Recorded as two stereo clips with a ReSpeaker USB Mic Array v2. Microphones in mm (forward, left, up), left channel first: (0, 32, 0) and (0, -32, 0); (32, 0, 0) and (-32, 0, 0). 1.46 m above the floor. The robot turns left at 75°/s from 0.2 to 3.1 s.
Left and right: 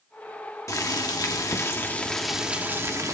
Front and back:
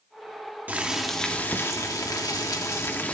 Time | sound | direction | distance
0.7 | boiling | 120° left | 1.4 m